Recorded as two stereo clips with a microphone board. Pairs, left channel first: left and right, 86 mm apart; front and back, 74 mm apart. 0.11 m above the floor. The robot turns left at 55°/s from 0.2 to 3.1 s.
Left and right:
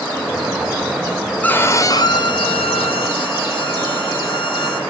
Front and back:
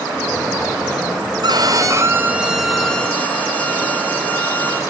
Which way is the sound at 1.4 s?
165° left.